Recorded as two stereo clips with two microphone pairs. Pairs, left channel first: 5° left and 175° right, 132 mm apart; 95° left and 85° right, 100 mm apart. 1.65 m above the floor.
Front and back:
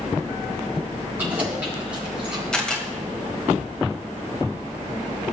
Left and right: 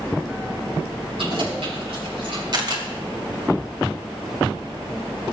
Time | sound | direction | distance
1.2 | keys jangling | 100° right | 6 m
2.5 | a camera shutter | 80° right | 2.0 m